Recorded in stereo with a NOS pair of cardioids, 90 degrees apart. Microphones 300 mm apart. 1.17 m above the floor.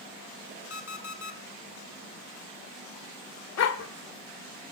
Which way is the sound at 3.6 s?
55° left.